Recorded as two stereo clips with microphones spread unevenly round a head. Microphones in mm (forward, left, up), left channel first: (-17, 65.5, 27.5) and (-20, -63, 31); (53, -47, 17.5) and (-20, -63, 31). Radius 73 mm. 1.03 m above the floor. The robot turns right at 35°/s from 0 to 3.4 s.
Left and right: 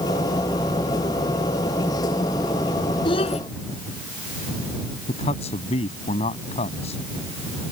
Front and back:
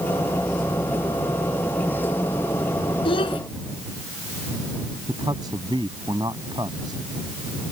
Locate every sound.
3.0 s a child speaking: 30° left; by 3.4 s 40° left
5.1 s a man speaking: 130° left